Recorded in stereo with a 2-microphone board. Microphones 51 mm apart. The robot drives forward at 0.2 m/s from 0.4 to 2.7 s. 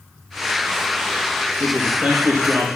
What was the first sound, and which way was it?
A man speaking, 30° right (ahead or behind).